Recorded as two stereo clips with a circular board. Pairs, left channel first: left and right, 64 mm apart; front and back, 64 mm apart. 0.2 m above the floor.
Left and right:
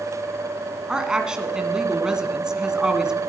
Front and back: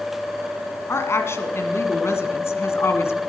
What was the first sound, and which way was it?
A woman speaking, 20° right.